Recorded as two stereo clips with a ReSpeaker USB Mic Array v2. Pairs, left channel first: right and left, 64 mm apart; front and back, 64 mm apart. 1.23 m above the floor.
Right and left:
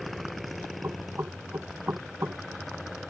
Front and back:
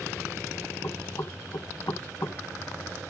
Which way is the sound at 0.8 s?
35° left.